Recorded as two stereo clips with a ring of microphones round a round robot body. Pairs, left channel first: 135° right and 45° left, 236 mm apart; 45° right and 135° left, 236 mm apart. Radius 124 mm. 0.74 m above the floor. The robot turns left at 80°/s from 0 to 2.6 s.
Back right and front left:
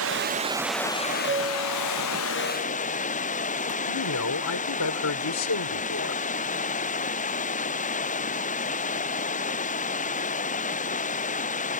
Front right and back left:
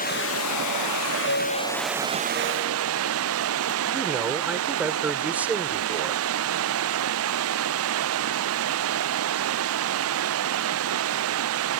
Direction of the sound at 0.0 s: 15° left.